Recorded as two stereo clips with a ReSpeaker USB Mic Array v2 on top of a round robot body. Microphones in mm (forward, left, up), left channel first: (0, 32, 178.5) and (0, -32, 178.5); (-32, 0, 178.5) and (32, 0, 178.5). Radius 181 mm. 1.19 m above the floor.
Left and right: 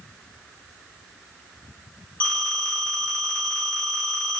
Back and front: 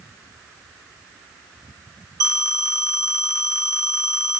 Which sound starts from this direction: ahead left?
A phone ringing, at 2.2 s.